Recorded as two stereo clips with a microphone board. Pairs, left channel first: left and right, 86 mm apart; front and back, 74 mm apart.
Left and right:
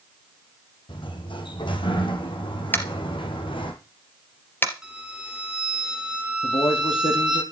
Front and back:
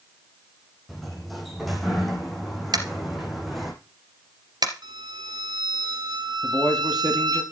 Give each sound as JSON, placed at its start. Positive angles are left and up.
{"t": 0.9, "sound": "a sliding door", "azimuth_deg": 90, "distance_m": 3.5}
{"t": 2.7, "sound": "tapping", "azimuth_deg": 155, "distance_m": 2.5}
{"t": 4.8, "sound": "a violin", "azimuth_deg": -170, "distance_m": 2.5}
{"t": 6.4, "sound": "a man speaking", "azimuth_deg": 85, "distance_m": 5.5}